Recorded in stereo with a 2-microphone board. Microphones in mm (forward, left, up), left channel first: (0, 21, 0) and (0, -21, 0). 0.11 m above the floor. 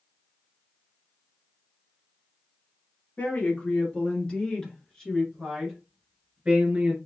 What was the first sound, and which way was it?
A woman speaking, 40° left (ahead or behind).